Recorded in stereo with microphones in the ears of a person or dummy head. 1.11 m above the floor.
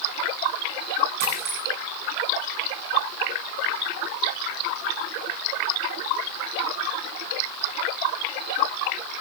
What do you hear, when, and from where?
1.2 s a dropped coin: 60° right (ahead or behind), 7 m